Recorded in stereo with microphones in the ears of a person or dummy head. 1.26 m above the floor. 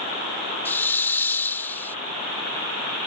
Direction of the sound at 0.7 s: 15° left (ahead or behind).